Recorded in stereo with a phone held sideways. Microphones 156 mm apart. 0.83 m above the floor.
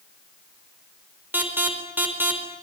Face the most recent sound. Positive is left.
turn(degrees=-10)  # may be behind; listen again after turning